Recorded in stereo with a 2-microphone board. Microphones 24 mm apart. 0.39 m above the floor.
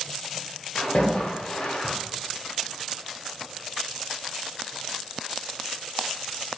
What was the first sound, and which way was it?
A splash, 55° left (ahead or behind).